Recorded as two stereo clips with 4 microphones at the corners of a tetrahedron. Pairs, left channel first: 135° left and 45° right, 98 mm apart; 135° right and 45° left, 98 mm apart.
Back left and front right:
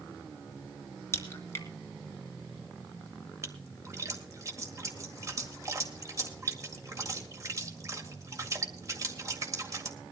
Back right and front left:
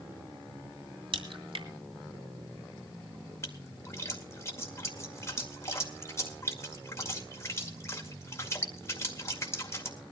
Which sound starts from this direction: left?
A crack, at 1.1 s.